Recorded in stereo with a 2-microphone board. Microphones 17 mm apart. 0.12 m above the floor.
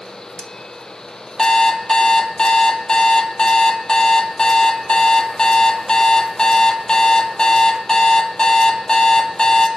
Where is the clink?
No clink in this recording.